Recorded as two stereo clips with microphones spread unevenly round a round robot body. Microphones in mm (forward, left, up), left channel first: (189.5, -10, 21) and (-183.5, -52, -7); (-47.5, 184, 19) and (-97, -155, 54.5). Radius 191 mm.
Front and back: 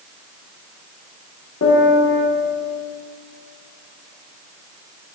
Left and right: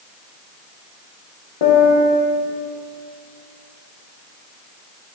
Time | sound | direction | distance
1.6 | a piano | 60° left | 1.0 m